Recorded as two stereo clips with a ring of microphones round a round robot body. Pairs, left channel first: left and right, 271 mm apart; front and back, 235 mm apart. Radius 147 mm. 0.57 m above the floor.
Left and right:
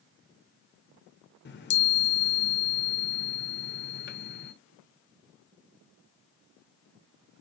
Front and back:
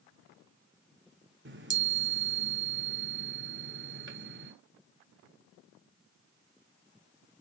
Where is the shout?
No shout in this recording.